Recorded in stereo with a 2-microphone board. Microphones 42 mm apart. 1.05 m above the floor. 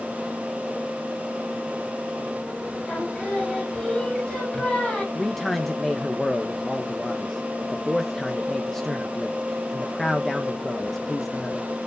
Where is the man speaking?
5° left (ahead or behind), 1.0 m.